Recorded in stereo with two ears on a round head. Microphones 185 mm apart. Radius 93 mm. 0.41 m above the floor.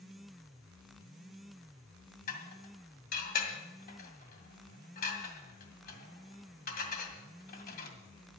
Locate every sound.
2.3 s dishes clattering: 40° left (ahead or behind), 2 m